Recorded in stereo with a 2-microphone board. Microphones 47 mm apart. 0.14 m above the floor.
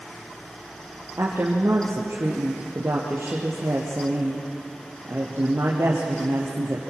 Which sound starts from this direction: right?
A woman speaking, at 1.2 s.